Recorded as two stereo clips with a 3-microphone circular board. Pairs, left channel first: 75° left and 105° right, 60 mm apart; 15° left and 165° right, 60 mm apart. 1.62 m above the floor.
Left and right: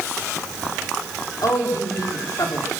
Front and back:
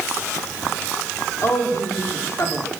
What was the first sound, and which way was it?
A woman speaking, 55° left.